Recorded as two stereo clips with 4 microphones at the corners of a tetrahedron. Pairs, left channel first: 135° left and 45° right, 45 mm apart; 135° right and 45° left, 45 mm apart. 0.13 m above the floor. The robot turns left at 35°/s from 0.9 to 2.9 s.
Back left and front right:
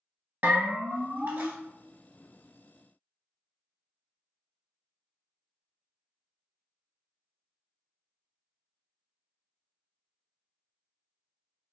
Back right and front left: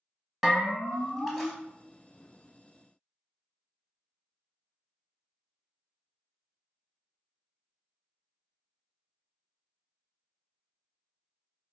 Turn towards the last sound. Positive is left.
turn(degrees=-110)